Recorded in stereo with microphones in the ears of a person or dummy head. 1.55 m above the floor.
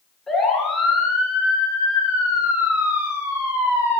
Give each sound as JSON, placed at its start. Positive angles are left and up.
{"t": 0.3, "sound": "a siren", "side_deg": 5, "distance_m": 6.0}